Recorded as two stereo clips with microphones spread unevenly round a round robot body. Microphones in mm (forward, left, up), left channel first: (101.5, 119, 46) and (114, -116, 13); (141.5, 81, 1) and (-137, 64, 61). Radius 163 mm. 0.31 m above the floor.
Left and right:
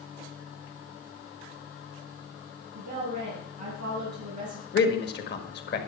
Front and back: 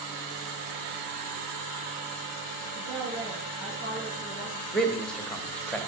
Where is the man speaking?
75° left, 1.7 m.